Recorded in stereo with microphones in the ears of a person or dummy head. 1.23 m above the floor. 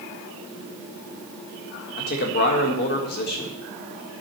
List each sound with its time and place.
2.0 s a man speaking: 45° left (ahead or behind), 1.5 m